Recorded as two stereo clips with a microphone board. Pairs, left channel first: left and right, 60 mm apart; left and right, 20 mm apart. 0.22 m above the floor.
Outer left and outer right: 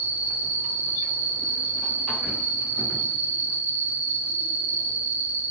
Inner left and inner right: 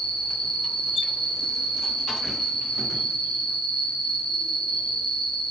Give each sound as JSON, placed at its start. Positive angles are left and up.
{"t": 0.0, "sound": "an insect", "side_deg": 55, "distance_m": 2.5}